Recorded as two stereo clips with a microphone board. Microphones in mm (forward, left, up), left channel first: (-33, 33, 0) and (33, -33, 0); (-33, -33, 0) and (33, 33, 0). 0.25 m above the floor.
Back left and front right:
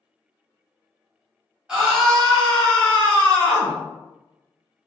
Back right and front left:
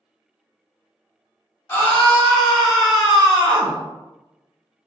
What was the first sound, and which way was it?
A scream, 115° right.